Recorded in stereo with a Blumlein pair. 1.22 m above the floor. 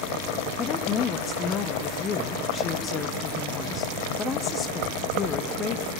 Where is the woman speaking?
25° left, 1.0 m.